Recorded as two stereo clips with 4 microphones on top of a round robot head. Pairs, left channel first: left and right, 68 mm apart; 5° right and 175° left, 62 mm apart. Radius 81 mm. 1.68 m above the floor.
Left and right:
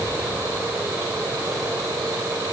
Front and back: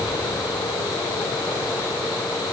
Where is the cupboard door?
I don't hear a cupboard door.